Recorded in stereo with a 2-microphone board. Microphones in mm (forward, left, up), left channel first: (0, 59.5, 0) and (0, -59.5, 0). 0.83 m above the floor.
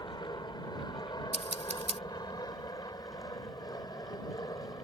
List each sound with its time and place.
0.0 s an aircraft: 35° left (ahead or behind)
1.3 s scissors: 75° right (ahead or behind)